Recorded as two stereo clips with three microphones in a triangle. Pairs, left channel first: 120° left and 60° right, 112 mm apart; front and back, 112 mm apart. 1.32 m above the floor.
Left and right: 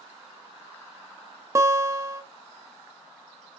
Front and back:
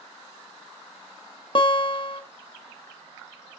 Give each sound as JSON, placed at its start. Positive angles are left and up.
{"t": 1.6, "sound": "a guitar", "azimuth_deg": -5, "distance_m": 0.9}